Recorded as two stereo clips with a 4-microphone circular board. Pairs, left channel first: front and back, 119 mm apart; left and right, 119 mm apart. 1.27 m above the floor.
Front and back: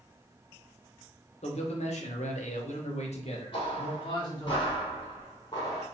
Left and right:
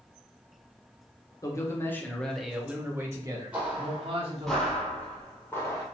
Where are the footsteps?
20° right, 1.7 m; by 5.8 s 40° left, 1.7 m.